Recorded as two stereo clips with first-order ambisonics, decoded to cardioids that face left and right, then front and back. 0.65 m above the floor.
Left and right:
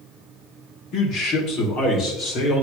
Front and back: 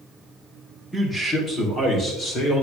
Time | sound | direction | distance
0.9 | a man speaking | 80° left | 1.7 m